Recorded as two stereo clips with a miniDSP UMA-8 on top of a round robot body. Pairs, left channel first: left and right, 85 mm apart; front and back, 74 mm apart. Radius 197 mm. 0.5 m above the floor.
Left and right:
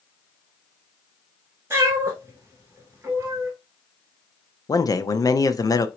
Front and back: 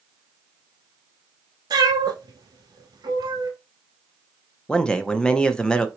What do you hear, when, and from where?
1.7 s a cat meowing: 155° right, 0.9 m
4.7 s a man speaking: 70° left, 0.9 m